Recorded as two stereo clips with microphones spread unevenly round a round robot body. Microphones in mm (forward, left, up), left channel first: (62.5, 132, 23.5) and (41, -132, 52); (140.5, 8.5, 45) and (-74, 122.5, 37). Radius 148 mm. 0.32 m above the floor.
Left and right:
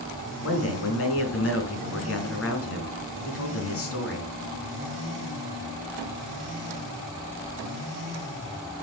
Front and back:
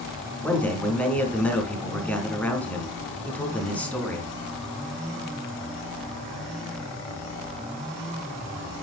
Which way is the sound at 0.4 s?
55° left.